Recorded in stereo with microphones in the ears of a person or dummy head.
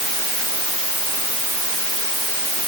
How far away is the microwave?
I don't hear a microwave.